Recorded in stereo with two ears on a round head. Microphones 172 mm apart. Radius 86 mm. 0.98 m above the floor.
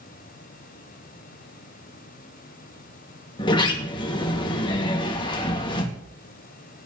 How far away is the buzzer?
I don't hear a buzzer.